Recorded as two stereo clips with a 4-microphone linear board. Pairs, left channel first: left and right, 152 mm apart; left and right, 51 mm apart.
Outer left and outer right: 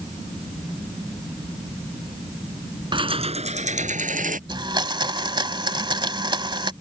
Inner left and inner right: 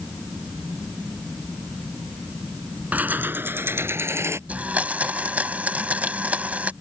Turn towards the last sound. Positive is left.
turn(degrees=-30)  # may be behind; listen again after turning